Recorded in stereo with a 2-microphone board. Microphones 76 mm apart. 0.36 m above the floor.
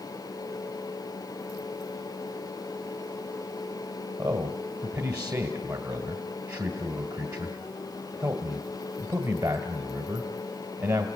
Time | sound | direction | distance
4.2 | a man speaking | 55° right (ahead or behind) | 1.9 m